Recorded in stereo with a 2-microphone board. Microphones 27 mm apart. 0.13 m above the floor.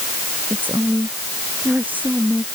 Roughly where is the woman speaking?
Right.